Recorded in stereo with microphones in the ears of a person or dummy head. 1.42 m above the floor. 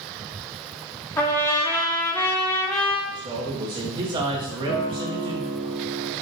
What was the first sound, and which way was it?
A trumpet, 10° left (ahead or behind).